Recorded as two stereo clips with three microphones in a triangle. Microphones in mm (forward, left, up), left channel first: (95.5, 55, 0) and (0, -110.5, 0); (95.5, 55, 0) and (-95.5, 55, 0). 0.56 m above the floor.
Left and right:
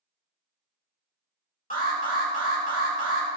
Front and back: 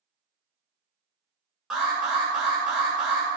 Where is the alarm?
95° left, 2.5 m.